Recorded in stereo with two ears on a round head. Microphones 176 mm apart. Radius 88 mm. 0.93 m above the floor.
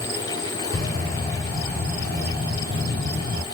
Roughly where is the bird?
Right.